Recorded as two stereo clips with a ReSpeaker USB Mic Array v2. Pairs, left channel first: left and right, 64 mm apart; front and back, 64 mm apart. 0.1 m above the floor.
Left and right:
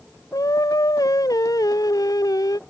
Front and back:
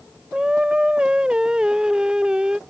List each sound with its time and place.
0.3 s singing: 105° left